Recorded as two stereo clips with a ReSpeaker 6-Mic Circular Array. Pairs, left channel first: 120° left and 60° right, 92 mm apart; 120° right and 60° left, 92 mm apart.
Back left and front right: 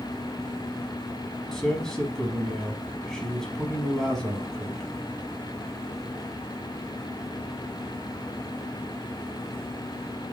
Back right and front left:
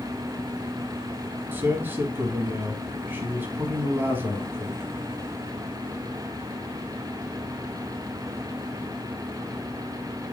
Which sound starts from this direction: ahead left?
A man speaking, at 1.5 s.